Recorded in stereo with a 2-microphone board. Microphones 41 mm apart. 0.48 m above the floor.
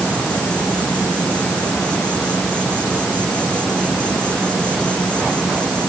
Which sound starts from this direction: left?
An insect, at 0.0 s.